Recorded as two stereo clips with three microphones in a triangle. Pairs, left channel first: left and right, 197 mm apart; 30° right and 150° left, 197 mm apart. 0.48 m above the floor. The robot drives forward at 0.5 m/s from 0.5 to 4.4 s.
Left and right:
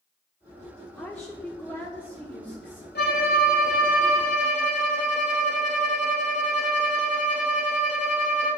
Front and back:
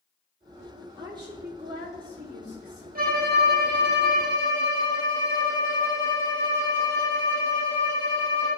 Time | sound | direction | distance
1.0 | a woman speaking | 165° left | 1.1 m
3.0 | a violin | 115° left | 1.3 m